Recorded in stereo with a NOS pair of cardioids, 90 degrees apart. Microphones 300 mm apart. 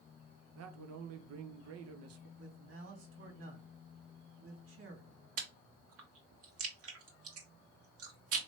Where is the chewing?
60° right, 1.5 m.